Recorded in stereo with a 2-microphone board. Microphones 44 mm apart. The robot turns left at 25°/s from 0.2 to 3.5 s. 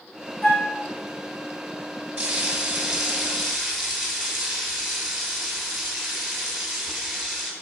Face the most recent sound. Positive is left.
turn(degrees=175)